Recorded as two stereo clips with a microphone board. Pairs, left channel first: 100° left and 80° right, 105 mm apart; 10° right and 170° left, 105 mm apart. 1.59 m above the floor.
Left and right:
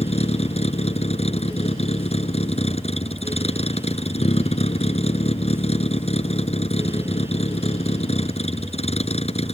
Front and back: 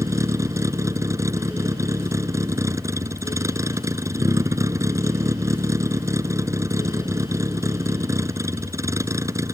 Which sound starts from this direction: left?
A vehicle, at 0.0 s.